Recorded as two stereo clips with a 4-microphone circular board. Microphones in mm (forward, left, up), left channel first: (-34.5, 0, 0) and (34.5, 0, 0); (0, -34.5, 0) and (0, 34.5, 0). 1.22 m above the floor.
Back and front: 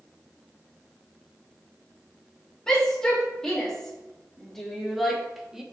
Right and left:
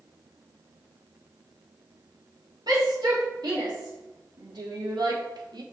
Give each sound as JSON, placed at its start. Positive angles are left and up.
{"t": 2.7, "sound": "a shout", "azimuth_deg": 100, "distance_m": 3.0}